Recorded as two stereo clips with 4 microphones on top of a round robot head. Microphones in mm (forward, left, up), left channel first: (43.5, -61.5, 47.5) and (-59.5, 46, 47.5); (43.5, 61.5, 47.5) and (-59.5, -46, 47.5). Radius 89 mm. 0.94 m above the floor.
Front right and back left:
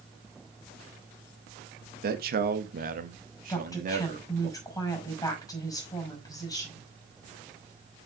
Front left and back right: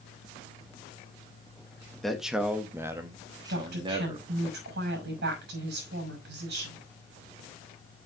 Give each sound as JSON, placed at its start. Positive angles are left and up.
{"t": 2.0, "sound": "a man speaking", "azimuth_deg": 135, "distance_m": 1.4}
{"t": 3.5, "sound": "a woman speaking", "azimuth_deg": -115, "distance_m": 5.5}